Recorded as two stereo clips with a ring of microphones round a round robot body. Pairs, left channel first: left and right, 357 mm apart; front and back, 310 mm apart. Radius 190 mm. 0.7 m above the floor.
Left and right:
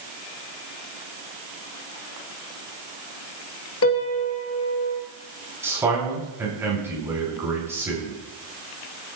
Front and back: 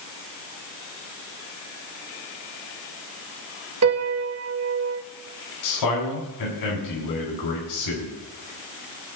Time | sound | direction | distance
3.8 | a piano | 145° left | 1.7 m
5.6 | a man speaking | 5° right | 5 m